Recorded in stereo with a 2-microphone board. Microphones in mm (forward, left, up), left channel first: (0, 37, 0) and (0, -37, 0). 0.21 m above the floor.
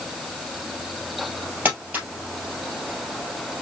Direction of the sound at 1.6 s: 25° right (ahead or behind).